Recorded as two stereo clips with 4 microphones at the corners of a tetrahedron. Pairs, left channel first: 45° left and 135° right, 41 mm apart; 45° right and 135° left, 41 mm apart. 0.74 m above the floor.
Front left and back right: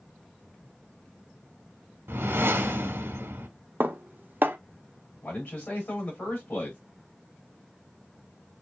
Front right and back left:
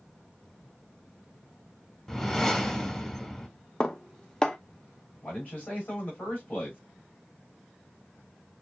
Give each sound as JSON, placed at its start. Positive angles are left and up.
{"t": 2.1, "sound": "a whoosh", "azimuth_deg": -125, "distance_m": 1.1}
{"t": 3.8, "sound": "dishes clattering", "azimuth_deg": -115, "distance_m": 0.7}
{"t": 5.2, "sound": "a man speaking", "azimuth_deg": 10, "distance_m": 3.5}